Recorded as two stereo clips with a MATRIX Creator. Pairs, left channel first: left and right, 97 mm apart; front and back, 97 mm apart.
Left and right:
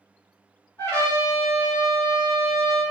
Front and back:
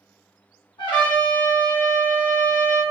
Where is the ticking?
No ticking in this recording.